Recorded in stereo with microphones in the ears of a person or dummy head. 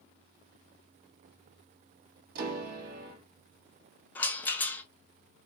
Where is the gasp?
No gasp in this recording.